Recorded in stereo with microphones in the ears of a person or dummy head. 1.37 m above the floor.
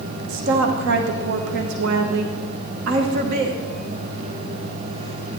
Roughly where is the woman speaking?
Right.